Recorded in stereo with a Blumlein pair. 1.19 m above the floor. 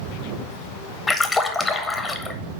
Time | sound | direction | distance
1.1 | a splash | 15° left | 0.8 m